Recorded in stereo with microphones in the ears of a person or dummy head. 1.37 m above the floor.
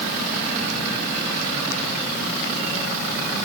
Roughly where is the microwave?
I don't hear a microwave.